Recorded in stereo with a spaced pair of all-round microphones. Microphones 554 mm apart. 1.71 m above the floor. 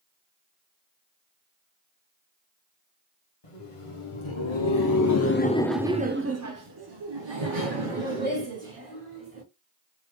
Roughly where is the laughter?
Left.